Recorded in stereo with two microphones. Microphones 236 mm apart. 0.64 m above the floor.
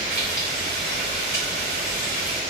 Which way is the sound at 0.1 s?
45° right (ahead or behind).